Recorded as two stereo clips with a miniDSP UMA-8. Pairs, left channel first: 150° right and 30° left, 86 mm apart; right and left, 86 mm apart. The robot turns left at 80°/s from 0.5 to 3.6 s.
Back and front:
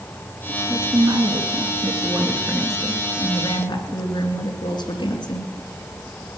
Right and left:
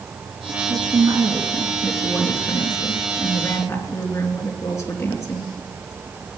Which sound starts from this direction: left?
A woman speaking, at 0.7 s.